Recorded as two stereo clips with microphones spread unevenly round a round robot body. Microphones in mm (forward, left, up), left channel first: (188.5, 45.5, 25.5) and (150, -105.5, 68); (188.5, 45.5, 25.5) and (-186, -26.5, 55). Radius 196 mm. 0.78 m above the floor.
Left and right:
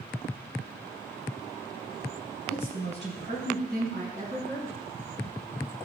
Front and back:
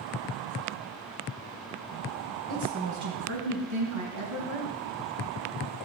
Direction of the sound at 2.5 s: 120° right.